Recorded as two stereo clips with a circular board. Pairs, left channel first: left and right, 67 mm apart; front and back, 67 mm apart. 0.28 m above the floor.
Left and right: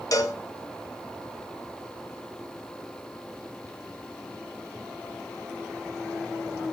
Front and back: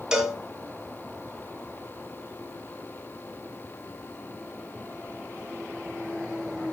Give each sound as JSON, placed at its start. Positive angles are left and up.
{"t": 0.1, "sound": "a cowbell", "azimuth_deg": 100, "distance_m": 2.5}